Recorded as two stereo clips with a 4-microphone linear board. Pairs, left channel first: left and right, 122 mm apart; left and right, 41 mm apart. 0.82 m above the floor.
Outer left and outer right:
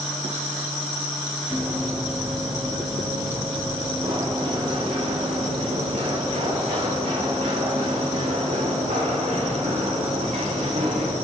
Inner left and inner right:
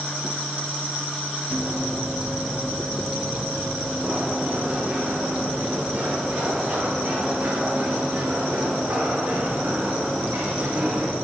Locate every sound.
1.5 s running footsteps: 10° left (ahead or behind), 1.3 m; by 11.1 s 65° right (ahead or behind), 5 m